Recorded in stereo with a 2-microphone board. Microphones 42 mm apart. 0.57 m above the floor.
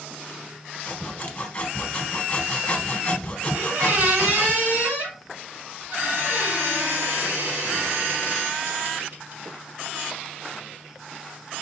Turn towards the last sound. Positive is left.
turn(degrees=-55)  # may be behind; listen again after turning